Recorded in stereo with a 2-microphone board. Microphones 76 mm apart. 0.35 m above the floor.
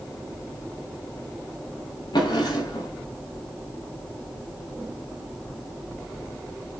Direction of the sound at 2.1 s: 75° left (ahead or behind).